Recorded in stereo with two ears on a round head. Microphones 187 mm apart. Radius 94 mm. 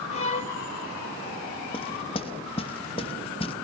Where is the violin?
35° left (ahead or behind), 2.5 m.